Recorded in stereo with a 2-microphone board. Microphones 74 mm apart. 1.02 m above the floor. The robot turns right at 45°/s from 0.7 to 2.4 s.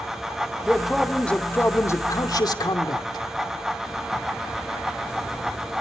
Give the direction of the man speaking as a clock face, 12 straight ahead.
12 o'clock.